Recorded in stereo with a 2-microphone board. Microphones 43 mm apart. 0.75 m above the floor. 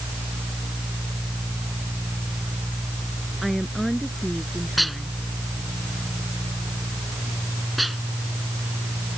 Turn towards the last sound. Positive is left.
turn(degrees=0)  # may be behind; listen again after turning